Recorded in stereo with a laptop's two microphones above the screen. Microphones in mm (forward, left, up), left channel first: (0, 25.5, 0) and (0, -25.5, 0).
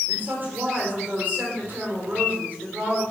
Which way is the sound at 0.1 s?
40° right (ahead or behind).